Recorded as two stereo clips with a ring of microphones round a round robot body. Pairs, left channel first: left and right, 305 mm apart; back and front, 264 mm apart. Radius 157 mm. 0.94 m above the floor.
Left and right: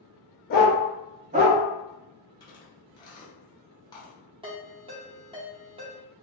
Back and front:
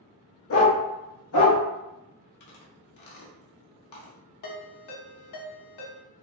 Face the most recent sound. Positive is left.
turn(degrees=-165)